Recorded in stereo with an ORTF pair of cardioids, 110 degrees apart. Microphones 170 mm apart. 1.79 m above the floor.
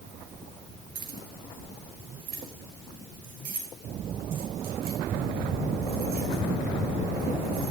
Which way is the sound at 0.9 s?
55° right.